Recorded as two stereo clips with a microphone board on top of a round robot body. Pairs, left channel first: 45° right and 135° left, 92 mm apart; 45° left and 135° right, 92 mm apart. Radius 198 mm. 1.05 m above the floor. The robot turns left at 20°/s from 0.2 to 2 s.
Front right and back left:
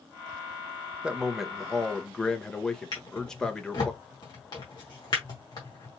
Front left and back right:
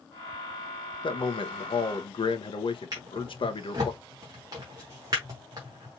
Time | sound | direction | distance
1.0 | a man speaking | 55° left | 1.2 m
2.9 | a drawer | 85° right | 0.8 m